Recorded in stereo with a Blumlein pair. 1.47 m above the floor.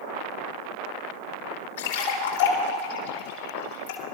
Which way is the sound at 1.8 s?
60° left.